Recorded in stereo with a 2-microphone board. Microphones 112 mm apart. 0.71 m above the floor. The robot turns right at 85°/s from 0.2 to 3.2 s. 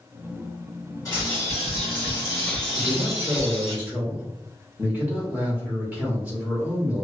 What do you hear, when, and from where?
1.1 s a bird: 35° left, 1.8 m; by 3.8 s 140° right, 1.8 m
2.8 s a man speaking: 60° right, 1.1 m; by 7.0 s 20° right, 1.1 m